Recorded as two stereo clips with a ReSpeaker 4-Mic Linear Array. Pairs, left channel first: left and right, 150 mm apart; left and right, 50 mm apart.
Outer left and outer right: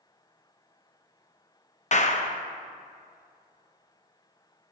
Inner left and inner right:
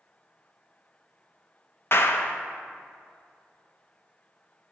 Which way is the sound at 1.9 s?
50° left (ahead or behind).